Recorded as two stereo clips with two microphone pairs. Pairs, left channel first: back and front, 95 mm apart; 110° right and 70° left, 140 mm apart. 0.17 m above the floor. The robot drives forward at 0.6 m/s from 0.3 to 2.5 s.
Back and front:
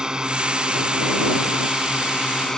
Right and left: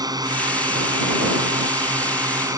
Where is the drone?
70° left; by 2.6 s 100° left.